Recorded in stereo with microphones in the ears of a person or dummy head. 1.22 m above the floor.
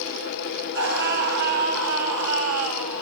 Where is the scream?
70° right (ahead or behind), 10 m; by 3.0 s 75° right (ahead or behind), 9 m.